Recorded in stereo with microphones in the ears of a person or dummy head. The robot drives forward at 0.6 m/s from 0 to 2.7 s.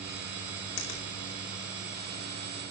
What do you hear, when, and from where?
0.8 s a finger snap: 70° left (ahead or behind), 3 m; by 1.1 s 65° left (ahead or behind), 3 m